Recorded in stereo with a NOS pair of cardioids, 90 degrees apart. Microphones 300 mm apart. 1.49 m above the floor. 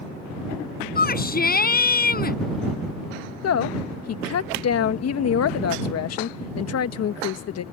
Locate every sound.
0.9 s a shout: 30° left
3.4 s a woman speaking: 60° left